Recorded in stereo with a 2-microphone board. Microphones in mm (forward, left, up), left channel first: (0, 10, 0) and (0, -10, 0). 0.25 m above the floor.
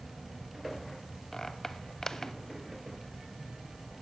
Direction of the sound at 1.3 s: 25° left (ahead or behind).